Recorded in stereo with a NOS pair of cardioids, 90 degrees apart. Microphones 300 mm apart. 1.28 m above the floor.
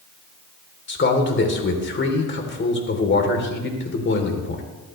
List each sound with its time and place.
0.9 s a man speaking: 35° left, 3.5 m